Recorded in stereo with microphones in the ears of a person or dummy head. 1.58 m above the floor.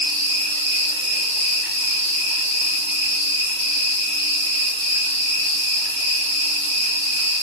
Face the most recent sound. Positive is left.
turn(degrees=-15)  # may be behind; listen again after turning